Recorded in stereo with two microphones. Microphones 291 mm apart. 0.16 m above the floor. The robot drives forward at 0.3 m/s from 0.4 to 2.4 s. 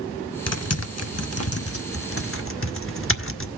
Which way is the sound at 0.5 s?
60° left (ahead or behind).